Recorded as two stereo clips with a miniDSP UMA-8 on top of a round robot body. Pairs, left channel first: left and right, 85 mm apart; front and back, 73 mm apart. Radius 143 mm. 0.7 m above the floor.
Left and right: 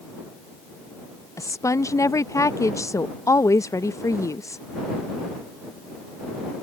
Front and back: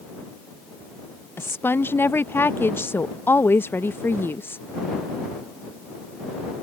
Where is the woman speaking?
50° left.